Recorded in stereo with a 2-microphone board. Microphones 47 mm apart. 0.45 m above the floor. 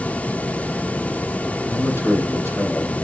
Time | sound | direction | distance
1.7 | a man speaking | 75° left (ahead or behind) | 3.5 m